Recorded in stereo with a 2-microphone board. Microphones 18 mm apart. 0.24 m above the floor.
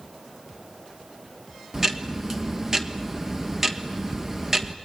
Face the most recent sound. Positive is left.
turn(degrees=-25)  # may be behind; listen again after turning